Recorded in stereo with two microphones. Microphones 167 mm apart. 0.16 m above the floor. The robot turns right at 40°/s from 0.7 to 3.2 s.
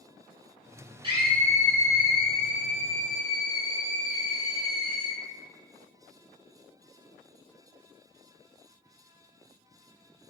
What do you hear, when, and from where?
1.0 s a scream: 45° right, 1.4 m; by 5.2 s 40° left, 1.4 m